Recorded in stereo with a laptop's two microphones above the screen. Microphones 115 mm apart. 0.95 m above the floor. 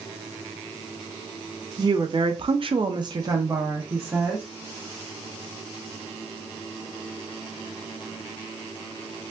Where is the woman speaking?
35° right (ahead or behind), 0.7 m; by 4.5 s 15° right (ahead or behind), 1.1 m.